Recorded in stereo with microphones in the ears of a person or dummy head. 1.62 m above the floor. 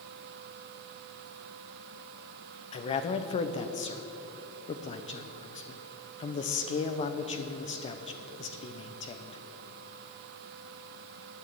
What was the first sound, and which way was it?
A man speaking, 35° left (ahead or behind).